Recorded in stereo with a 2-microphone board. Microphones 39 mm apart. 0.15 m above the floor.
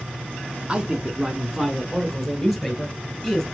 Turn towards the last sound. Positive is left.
turn(degrees=5)  # may be behind; listen again after turning